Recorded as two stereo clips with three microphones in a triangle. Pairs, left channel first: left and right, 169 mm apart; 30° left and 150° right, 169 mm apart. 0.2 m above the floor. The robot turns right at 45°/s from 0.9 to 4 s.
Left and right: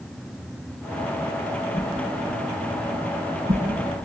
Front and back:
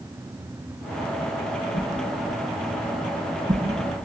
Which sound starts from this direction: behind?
A whoosh, at 1.7 s.